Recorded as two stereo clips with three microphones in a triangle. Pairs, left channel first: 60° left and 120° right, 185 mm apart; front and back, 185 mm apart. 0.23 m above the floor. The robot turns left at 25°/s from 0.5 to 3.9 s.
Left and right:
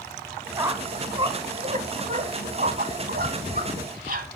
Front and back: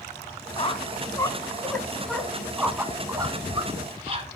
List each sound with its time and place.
0.6 s a squeak: 50° right, 0.9 m; by 4.3 s 135° right, 0.9 m